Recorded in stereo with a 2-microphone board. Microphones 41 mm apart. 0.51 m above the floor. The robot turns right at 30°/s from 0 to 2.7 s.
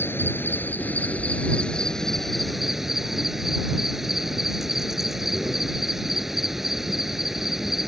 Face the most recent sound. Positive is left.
turn(degrees=-175)